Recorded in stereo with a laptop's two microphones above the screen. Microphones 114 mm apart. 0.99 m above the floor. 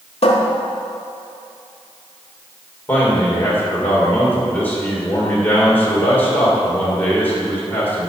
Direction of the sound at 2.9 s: 15° left (ahead or behind).